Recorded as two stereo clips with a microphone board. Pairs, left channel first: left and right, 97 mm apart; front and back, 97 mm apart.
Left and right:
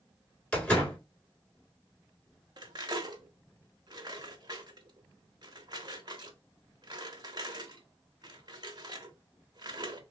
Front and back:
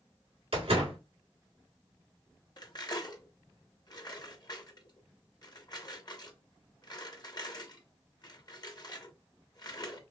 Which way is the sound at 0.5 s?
165° left.